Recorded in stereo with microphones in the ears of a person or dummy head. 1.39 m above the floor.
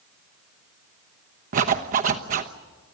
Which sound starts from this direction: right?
A zipper, at 1.5 s.